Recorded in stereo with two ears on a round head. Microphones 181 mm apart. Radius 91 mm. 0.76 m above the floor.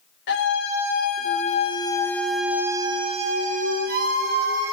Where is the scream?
60° left (ahead or behind), 3.5 m; by 4.7 s 55° right (ahead or behind), 4 m.